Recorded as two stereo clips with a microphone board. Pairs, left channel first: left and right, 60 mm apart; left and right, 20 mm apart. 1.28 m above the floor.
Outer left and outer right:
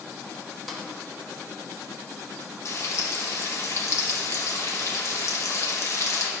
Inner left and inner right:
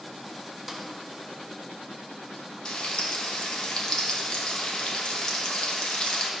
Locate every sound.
0.7 s a snare drum: centre (ahead or behind), 1.1 m
2.6 s frying: 55° left (ahead or behind), 1.1 m